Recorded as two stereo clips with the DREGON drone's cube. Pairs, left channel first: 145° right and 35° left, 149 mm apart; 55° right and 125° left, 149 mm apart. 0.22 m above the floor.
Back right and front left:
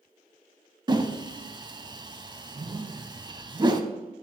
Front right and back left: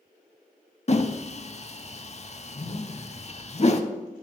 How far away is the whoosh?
About 0.5 m.